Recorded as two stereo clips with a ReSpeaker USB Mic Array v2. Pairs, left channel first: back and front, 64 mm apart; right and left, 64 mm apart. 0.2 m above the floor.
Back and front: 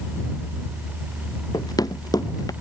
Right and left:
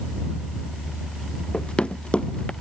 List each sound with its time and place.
1.5 s running footsteps: 165° right